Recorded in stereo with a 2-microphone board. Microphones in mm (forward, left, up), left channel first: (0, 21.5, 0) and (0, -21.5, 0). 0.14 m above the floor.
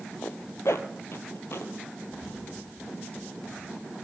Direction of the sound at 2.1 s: 15° right (ahead or behind).